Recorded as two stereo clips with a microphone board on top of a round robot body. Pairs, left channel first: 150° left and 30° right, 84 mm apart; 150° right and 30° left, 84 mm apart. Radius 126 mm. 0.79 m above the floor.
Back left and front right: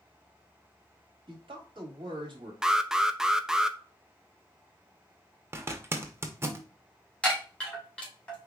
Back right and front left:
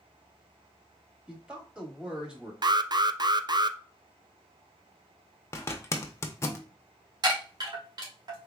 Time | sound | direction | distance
1.3 | a man speaking | 45° right | 1.8 m
2.6 | an alarm | 50° left | 0.5 m
5.5 | a zipper | 90° right | 0.8 m
7.2 | a chime | 70° left | 2 m